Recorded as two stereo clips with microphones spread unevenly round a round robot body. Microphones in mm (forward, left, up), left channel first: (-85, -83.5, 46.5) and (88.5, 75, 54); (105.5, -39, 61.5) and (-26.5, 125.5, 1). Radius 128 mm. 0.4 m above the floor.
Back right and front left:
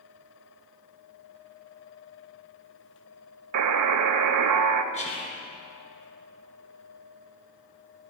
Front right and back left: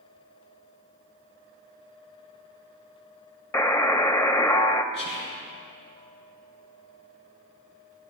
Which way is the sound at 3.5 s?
30° left.